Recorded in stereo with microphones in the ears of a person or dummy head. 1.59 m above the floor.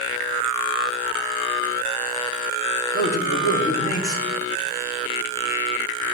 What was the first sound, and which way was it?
A man speaking, 30° left (ahead or behind).